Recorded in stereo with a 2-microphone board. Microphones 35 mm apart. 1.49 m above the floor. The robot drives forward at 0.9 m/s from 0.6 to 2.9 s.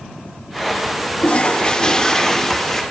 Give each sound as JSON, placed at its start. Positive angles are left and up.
{"t": 1.2, "sound": "a toilet flushing", "side_deg": 35, "distance_m": 0.6}